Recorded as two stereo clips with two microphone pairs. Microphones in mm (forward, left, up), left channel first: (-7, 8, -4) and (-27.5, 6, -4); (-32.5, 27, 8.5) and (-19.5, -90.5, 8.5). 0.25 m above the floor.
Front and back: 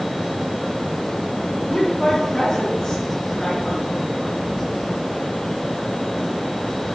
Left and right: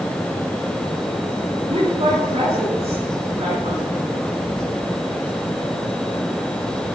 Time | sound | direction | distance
1.7 | a woman speaking | 60° right | 5.5 m